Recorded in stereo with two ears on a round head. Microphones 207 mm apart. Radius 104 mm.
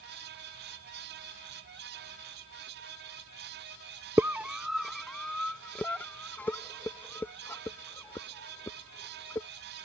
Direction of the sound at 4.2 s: 10° right (ahead or behind).